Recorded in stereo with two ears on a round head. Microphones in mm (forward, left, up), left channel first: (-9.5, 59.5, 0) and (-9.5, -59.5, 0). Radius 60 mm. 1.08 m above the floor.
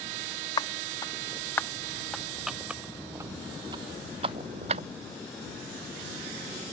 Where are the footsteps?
25° left (ahead or behind); by 4.8 s 50° right (ahead or behind).